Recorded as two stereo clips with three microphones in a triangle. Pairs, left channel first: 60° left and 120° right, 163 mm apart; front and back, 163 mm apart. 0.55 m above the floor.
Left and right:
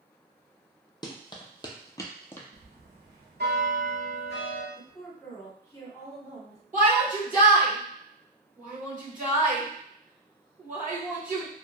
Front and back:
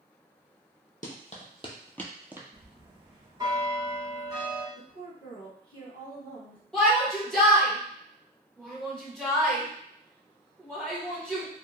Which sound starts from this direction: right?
A shout, at 6.7 s.